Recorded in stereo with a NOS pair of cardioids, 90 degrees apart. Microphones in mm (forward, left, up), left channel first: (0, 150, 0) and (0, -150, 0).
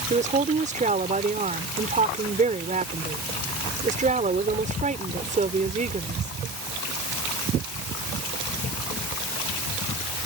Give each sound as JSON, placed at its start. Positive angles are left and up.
{"t": 0.1, "sound": "a woman speaking", "azimuth_deg": -25}